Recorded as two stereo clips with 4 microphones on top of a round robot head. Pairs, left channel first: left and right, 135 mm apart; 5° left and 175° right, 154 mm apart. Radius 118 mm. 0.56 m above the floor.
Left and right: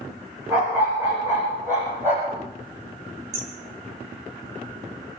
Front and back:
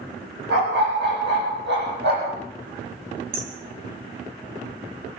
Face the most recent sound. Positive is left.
turn(degrees=-140)